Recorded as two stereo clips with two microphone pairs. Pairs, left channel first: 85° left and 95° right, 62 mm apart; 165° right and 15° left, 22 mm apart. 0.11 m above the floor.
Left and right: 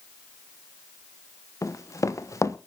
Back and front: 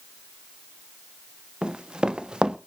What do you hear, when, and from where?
1.6 s running footsteps: 60° left, 1.3 m